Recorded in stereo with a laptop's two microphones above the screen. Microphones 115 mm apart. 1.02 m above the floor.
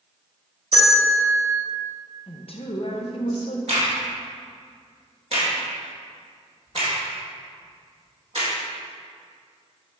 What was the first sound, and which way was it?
A bell, 65° right (ahead or behind).